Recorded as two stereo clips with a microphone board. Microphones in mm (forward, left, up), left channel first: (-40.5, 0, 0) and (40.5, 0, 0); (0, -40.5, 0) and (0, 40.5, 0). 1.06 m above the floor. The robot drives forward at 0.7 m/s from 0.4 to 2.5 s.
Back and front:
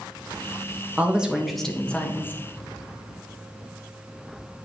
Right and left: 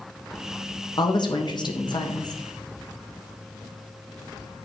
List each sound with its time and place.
1.0 s a woman speaking: 70° right, 1.4 m; by 2.4 s 120° right, 1.4 m